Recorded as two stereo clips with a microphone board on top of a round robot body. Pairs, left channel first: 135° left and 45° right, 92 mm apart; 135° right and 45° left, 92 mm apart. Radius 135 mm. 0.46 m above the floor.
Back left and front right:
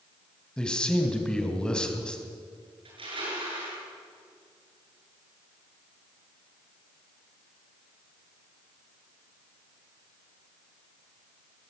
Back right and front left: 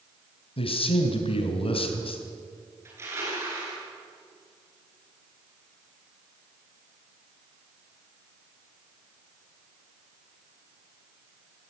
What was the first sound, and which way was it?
A man speaking, 145° right.